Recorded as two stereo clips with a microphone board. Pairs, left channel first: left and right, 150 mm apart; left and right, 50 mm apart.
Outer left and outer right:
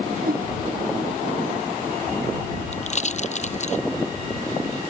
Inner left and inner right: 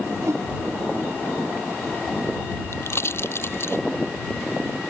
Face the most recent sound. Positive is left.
turn(degrees=50)  # may be behind; listen again after turning